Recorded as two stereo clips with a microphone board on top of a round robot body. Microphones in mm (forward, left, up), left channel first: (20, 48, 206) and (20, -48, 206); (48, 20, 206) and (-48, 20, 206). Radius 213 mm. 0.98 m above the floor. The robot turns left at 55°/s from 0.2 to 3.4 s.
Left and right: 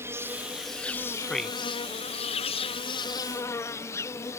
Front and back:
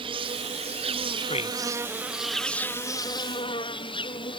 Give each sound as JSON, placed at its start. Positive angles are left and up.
{"t": 0.0, "sound": "an insect", "azimuth_deg": -155}
{"t": 1.2, "sound": "a man speaking", "azimuth_deg": 15}